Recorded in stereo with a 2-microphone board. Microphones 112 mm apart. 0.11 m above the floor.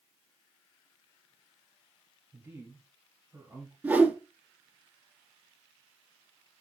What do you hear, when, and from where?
2.3 s a man speaking: 20° right (ahead or behind), 2.5 m
3.8 s a whoosh: 15° right (ahead or behind), 1.0 m